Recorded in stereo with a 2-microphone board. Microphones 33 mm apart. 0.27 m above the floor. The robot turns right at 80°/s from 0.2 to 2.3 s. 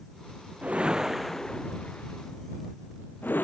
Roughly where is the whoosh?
Right.